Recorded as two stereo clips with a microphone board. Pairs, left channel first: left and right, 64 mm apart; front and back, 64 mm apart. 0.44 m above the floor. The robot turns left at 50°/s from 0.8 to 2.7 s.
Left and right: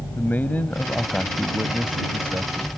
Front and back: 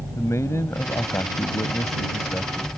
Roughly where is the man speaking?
Ahead left.